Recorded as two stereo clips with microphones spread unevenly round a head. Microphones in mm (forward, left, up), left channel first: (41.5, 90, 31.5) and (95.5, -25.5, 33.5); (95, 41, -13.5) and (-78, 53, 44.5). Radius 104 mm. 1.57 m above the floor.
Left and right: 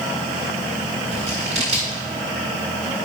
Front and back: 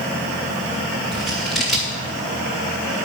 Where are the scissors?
110° right, 1.7 m.